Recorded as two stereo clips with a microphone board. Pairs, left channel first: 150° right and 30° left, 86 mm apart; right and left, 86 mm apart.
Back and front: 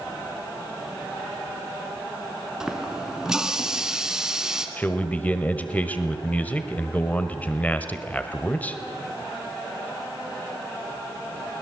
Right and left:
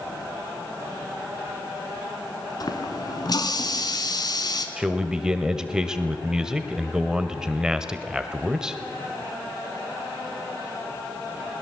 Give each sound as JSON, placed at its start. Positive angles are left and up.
{"t": 2.6, "sound": "a running tap", "azimuth_deg": -55, "distance_m": 2.0}
{"t": 4.8, "sound": "a man speaking", "azimuth_deg": 160, "distance_m": 1.2}